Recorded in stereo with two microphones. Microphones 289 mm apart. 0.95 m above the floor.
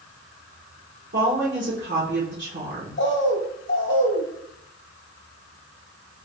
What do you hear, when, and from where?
1.1 s a woman speaking: 45° right (ahead or behind), 1.0 m
3.0 s a bird: 45° left (ahead or behind), 0.7 m